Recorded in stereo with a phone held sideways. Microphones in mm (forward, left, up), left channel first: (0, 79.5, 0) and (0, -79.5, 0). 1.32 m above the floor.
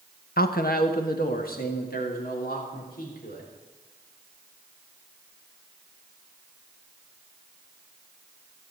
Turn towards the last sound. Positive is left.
turn(degrees=65)  # may be behind; listen again after turning